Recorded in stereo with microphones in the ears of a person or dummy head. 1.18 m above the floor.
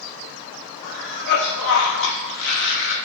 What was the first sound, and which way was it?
A cough, 65° left (ahead or behind).